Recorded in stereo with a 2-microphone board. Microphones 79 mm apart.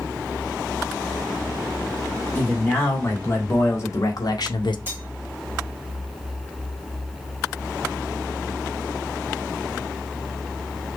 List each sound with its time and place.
2.4 s a man speaking: 25° left (ahead or behind), 2.5 m; by 4.8 s 75° left (ahead or behind), 0.6 m
4.9 s cutlery clinking: 25° right (ahead or behind), 1.3 m